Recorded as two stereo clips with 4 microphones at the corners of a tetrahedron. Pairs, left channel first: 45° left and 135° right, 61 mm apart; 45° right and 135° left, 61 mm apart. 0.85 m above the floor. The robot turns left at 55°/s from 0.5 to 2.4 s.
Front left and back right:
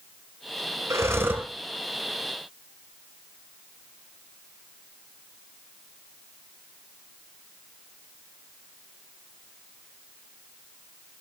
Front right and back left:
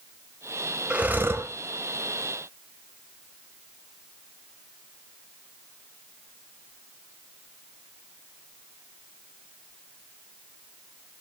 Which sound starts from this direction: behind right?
Breathing, at 0.9 s.